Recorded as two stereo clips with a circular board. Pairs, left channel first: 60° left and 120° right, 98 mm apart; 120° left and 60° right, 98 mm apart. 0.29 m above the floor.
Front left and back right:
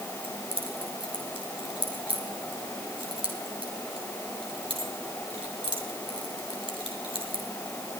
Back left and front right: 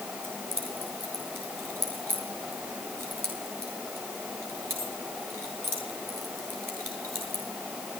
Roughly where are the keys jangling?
Behind right.